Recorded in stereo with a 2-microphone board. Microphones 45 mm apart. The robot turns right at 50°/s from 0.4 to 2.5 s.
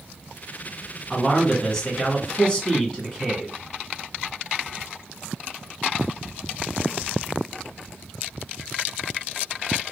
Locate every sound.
1.1 s a man speaking: 5° left (ahead or behind), 1.5 m; by 3.6 s 20° left (ahead or behind), 1.5 m